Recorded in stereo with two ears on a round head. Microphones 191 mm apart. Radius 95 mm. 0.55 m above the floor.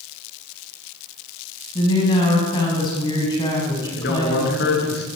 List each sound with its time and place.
1.8 s a woman speaking: 20° left (ahead or behind), 5 m
4.0 s a man speaking: 50° left (ahead or behind), 6.5 m